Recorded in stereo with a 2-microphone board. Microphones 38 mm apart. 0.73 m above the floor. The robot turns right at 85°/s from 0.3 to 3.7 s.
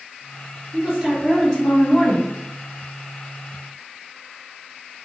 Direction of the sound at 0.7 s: 65° right.